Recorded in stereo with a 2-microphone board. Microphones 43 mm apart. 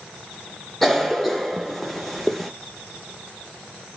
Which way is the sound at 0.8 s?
5° left (ahead or behind).